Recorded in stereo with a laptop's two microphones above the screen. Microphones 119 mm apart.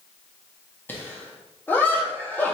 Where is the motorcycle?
I don't hear a motorcycle.